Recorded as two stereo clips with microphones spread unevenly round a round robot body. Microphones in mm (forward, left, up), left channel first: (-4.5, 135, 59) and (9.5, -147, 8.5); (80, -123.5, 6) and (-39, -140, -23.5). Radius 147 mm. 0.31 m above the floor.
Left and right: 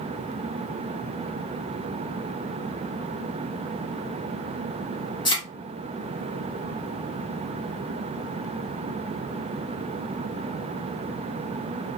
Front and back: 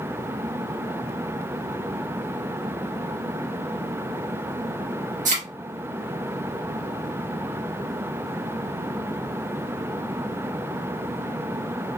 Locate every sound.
5.2 s a thud: 170° left, 1.9 m